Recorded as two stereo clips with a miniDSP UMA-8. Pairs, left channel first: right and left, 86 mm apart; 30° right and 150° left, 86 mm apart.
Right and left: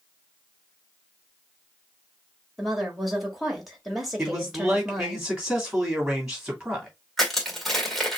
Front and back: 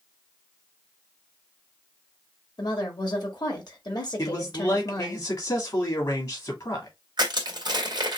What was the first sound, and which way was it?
A woman speaking, straight ahead.